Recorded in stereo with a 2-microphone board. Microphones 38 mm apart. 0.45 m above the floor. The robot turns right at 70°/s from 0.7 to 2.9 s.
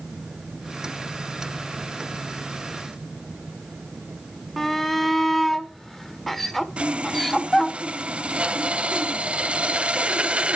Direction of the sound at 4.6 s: 5° left (ahead or behind).